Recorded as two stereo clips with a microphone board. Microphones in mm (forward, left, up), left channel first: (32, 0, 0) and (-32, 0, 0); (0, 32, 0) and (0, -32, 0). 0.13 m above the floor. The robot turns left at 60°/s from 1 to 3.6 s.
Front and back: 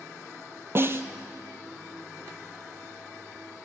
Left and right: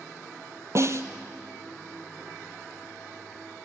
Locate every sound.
0.8 s a snare drum: 130° right, 1.3 m; by 1.1 s 135° right, 1.3 m